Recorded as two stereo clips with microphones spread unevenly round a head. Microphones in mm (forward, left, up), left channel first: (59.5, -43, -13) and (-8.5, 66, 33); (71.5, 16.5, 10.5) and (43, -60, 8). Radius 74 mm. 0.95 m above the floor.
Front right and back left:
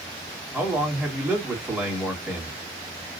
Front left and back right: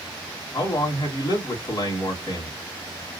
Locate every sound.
0.5 s a man speaking: 40° left, 2.5 m